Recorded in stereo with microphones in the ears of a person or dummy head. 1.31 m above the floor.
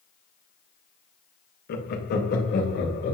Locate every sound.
1.7 s laughter: 50° left (ahead or behind), 1.2 m; by 3.1 s 55° left (ahead or behind), 2.5 m